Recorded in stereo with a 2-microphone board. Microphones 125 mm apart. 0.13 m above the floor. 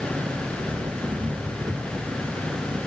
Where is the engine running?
30° right (ahead or behind).